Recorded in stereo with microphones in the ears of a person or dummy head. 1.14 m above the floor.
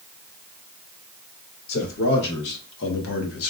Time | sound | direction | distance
1.7 | a man speaking | 60° left (ahead or behind) | 1.8 m